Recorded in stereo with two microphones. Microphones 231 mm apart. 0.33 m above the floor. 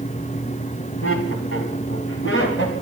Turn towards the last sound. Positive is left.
turn(degrees=50)  # may be behind; listen again after turning